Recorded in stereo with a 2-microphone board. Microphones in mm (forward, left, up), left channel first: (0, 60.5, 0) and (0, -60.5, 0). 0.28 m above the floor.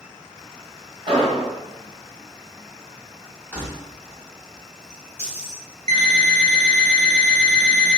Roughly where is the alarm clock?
Right.